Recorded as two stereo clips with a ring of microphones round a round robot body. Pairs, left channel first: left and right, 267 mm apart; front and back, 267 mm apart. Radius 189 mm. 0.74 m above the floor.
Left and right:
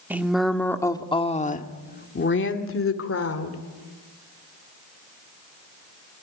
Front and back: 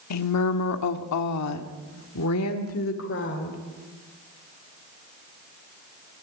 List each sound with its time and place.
0.1 s a woman speaking: 5° right, 1.9 m; by 3.6 s 60° left, 2.5 m